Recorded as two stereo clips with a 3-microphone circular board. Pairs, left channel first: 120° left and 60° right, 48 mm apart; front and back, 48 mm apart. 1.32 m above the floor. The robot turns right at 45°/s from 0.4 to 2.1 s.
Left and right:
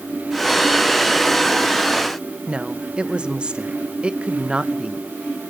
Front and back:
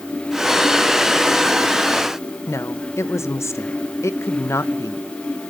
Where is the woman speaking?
10° left, 1.0 m.